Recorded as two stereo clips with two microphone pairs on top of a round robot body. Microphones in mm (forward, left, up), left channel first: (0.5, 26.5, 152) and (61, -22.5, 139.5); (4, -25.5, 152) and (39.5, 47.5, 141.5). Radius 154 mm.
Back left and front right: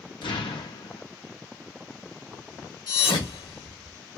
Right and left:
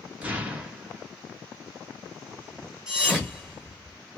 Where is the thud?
145° left, 1.7 m.